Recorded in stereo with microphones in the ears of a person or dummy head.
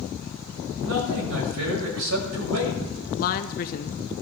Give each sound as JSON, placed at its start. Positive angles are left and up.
{"t": 0.8, "sound": "a man speaking", "side_deg": -85, "distance_m": 6.5}
{"t": 3.1, "sound": "a woman speaking", "side_deg": 45, "distance_m": 0.9}